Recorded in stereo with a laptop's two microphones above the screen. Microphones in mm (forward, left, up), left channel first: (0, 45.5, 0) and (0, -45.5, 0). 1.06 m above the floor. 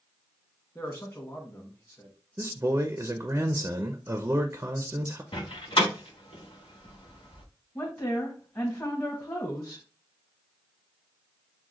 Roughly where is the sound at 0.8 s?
Left.